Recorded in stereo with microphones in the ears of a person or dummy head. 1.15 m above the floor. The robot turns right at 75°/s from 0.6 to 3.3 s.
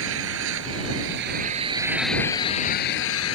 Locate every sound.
0.0 s an engine running: 105° right; by 3.4 s 95° left